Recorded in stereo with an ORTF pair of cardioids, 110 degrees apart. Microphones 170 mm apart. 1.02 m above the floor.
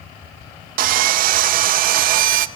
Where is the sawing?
60° right, 0.5 m.